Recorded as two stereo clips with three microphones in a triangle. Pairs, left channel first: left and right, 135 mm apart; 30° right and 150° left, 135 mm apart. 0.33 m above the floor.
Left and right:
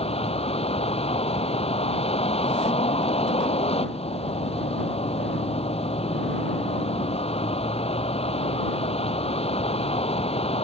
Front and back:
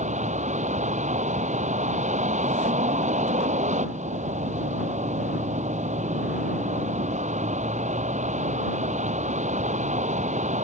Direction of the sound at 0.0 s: 130° left.